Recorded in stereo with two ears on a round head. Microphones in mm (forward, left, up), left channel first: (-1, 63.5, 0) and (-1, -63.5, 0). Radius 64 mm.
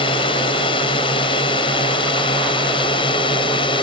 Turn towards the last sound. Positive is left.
turn(degrees=35)  # may be behind; listen again after turning